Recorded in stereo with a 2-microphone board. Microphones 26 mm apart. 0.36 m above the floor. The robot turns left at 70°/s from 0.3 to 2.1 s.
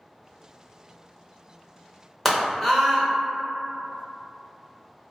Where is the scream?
10° left (ahead or behind), 0.9 m.